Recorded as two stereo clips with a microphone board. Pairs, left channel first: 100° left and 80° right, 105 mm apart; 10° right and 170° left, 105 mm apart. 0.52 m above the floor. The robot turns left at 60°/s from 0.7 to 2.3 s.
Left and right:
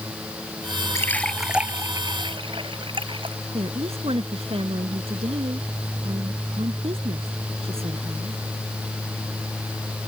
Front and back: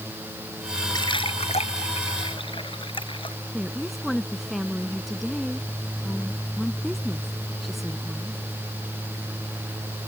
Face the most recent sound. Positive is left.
turn(degrees=-100)